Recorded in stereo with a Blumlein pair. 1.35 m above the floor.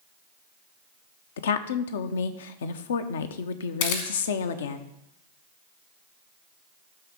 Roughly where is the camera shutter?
Ahead left.